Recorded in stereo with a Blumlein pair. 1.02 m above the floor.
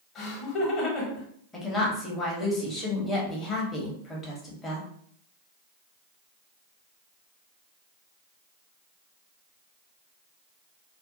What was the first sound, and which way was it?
Laughter, 30° left.